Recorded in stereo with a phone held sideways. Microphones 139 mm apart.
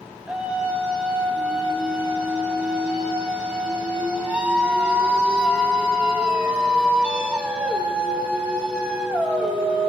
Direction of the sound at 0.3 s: 10° right (ahead or behind).